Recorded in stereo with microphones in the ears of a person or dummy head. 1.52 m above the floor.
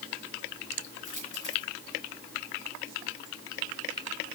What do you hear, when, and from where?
1.1 s a dropped coin: 45° left (ahead or behind), 5.5 m